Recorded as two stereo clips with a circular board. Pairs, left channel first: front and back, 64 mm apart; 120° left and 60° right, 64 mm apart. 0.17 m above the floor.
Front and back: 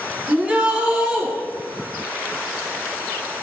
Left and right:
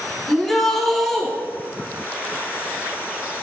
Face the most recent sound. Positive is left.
turn(degrees=-160)